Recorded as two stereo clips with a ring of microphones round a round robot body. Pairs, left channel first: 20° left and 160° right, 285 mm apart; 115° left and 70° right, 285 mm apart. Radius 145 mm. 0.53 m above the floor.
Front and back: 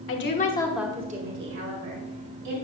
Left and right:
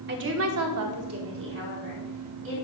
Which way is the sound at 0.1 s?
15° right.